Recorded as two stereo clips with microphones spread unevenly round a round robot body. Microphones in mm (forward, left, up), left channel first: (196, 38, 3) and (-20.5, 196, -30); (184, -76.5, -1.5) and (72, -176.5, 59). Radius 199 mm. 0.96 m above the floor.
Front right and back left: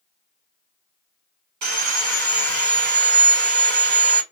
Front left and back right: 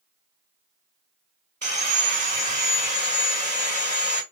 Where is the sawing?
155° left, 1.5 m.